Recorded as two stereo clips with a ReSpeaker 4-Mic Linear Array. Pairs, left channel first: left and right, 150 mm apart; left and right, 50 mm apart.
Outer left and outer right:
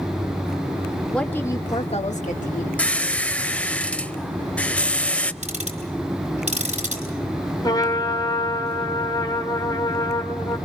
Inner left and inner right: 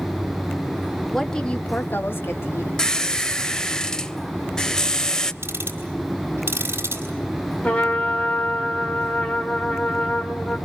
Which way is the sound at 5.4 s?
50° right (ahead or behind).